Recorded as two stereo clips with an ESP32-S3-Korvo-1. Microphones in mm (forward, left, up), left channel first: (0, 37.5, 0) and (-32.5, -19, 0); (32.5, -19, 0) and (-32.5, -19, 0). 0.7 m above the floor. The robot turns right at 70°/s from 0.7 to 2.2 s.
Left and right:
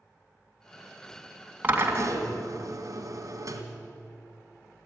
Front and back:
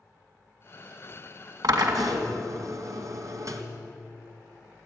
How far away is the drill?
About 2.5 m.